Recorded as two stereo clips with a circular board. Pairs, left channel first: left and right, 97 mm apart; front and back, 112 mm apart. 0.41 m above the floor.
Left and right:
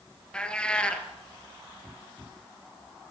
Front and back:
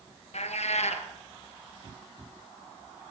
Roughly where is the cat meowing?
Ahead.